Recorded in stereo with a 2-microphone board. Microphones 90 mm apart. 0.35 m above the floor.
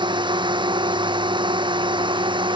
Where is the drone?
60° right (ahead or behind); by 2.6 s 65° right (ahead or behind).